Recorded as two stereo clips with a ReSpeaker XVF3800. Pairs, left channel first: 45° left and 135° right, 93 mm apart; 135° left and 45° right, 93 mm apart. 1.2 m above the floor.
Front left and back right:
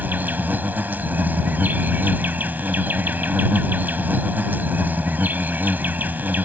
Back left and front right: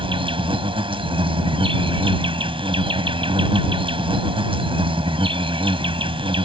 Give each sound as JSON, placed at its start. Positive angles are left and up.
{"t": 0.0, "sound": "an insect", "azimuth_deg": -65}